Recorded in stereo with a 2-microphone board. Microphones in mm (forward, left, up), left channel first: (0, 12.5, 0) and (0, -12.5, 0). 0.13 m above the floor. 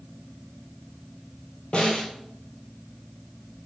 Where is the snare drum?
45° left (ahead or behind), 1.4 m.